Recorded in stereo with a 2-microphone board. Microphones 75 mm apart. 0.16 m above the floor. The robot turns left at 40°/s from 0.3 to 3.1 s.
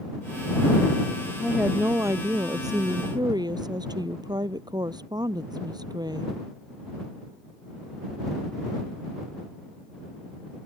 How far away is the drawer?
No drawer in this recording.